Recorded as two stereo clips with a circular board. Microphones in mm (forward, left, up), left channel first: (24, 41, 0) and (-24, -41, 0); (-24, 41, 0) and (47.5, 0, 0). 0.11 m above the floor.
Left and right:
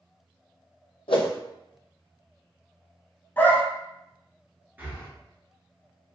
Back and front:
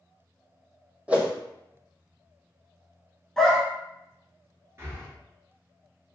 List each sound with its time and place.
1.1 s a whoosh: 45° left, 0.6 m
3.4 s a dog barking: 75° left, 0.6 m
4.8 s breathing: 60° right, 1.0 m